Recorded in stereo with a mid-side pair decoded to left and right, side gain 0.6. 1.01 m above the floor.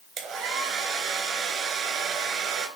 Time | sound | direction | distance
0.2 | a hair dryer | 55° right | 3.5 m